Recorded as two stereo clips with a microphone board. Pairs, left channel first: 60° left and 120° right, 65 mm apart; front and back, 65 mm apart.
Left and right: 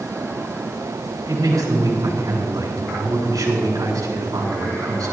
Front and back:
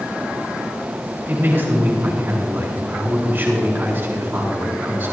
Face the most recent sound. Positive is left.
turn(degrees=-120)